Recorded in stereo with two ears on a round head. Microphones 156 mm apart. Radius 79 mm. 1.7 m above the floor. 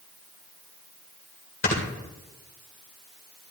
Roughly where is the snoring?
Left.